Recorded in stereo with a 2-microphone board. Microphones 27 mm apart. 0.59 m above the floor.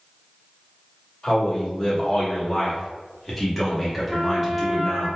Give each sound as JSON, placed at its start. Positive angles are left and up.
{"t": 1.2, "sound": "a man speaking", "side_deg": 30, "distance_m": 1.3}
{"t": 4.1, "sound": "a trumpet", "side_deg": -10, "distance_m": 1.2}